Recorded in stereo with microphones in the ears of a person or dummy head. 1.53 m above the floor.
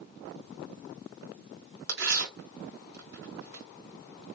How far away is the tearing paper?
About 1.6 m.